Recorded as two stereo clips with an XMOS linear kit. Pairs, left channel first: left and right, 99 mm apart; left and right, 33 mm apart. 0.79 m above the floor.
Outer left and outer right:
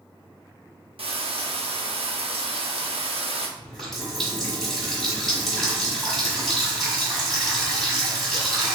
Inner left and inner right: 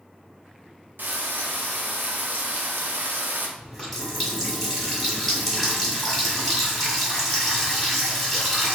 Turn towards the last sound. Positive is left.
turn(degrees=5)  # may be behind; listen again after turning